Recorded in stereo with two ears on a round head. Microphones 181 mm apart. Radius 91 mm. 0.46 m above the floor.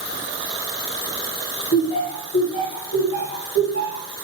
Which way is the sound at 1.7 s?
45° left (ahead or behind).